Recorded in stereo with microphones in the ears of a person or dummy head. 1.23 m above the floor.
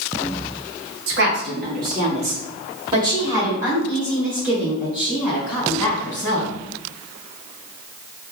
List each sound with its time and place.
1.1 s a woman speaking: 60° right (ahead or behind), 1.0 m; by 6.5 s 5° left (ahead or behind), 3 m